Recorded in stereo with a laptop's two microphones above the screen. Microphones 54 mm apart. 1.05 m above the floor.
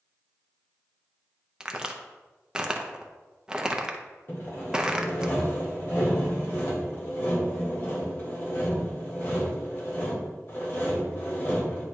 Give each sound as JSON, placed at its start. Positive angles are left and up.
{"t": 1.6, "sound": "a crack", "side_deg": -15, "distance_m": 0.7}
{"t": 4.3, "sound": "sawing", "side_deg": 50, "distance_m": 1.8}